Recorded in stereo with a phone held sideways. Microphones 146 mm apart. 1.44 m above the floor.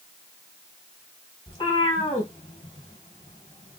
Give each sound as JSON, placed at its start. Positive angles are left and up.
{"t": 1.5, "sound": "a cat meowing", "side_deg": 35, "distance_m": 2.5}